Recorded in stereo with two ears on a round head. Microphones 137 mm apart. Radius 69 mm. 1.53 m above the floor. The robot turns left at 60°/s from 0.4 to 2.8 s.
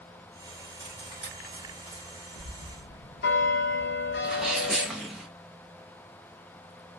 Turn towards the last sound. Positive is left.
turn(degrees=-5)  # may be behind; listen again after turning